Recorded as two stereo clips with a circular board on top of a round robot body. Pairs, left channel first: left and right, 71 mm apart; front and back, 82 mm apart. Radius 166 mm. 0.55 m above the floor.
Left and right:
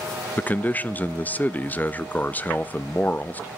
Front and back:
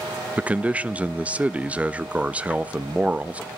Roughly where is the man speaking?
Behind left.